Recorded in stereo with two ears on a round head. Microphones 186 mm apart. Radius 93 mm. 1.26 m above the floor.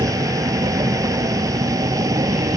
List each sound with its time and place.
0.0 s a vehicle: 15° right (ahead or behind)